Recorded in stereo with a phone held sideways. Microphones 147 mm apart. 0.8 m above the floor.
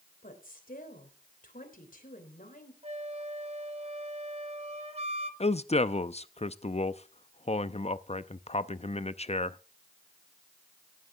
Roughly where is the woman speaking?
Left.